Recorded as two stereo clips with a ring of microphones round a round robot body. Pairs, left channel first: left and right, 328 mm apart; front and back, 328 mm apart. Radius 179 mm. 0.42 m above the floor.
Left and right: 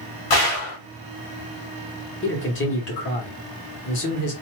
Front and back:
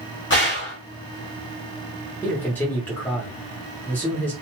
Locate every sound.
0.3 s a gunshot: 60° left, 0.8 m
2.2 s a man speaking: 80° left, 1.0 m